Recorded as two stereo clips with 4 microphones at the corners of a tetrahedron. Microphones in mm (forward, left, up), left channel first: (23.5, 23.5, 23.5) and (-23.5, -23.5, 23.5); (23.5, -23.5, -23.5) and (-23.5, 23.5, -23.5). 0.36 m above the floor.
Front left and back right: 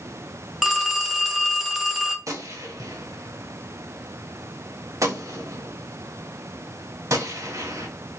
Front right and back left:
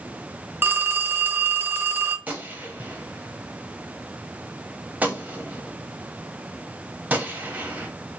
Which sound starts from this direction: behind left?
A phone ringing, at 0.6 s.